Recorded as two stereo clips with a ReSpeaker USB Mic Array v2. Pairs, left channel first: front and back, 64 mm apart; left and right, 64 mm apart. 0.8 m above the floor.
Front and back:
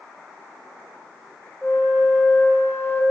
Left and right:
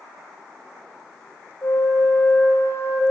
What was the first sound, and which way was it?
A flute, 60° left.